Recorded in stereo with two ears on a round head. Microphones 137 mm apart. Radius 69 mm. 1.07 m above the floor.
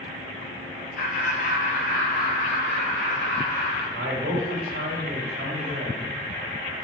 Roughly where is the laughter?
Left.